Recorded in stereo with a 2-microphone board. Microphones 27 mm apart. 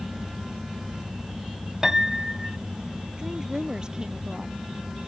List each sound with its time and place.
1.8 s a piano: 25° right (ahead or behind)
3.2 s a woman speaking: 25° right (ahead or behind)